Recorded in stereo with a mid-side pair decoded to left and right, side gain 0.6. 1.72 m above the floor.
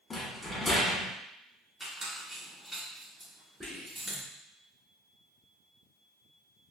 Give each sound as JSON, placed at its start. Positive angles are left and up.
{"t": 0.1, "sound": "a rattle", "azimuth_deg": 20, "distance_m": 1.5}
{"t": 1.8, "sound": "a squeak", "azimuth_deg": -15, "distance_m": 2.0}
{"t": 3.6, "sound": "whispering", "azimuth_deg": -10, "distance_m": 1.7}